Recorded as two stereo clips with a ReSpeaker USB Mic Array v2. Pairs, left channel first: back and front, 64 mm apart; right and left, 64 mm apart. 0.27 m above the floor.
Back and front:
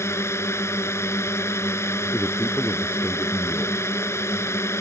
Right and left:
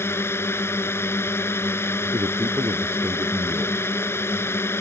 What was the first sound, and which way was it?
A drone, 135° right.